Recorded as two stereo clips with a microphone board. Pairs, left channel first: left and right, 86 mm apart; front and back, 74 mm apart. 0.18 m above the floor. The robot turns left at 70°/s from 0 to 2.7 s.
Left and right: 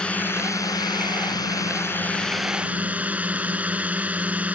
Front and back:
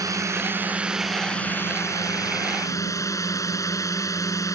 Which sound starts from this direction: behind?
A drone, at 0.0 s.